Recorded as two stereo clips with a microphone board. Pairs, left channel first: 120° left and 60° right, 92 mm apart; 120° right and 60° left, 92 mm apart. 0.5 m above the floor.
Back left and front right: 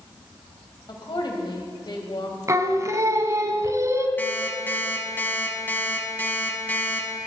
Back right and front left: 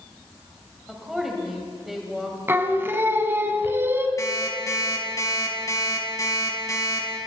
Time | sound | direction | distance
0.9 | a woman speaking | 145° left | 3 m
2.5 | singing | 5° right | 1.1 m
4.2 | an alarm clock | 170° right | 3 m